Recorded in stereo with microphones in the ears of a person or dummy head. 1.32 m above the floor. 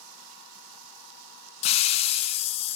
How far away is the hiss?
About 0.6 m.